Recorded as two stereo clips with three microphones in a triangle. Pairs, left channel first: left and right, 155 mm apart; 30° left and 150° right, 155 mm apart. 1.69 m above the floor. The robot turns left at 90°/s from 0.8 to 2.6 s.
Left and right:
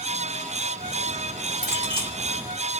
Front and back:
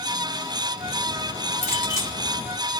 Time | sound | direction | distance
1.6 | a clink | 5° right | 1.7 m